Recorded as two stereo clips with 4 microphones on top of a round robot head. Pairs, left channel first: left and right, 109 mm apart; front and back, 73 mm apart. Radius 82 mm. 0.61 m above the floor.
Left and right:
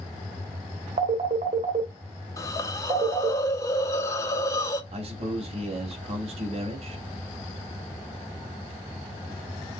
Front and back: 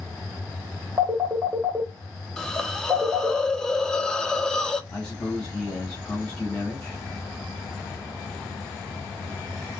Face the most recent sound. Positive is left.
turn(degrees=-80)